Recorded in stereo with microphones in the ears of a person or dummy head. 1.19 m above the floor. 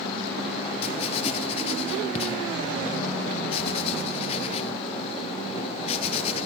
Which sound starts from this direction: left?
Writing, at 0.8 s.